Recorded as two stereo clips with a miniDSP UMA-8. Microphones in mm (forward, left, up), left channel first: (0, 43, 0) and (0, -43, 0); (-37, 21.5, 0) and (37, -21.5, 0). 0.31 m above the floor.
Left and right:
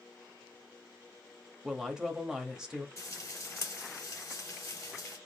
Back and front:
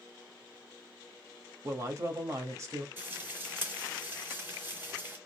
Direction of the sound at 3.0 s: 35° left.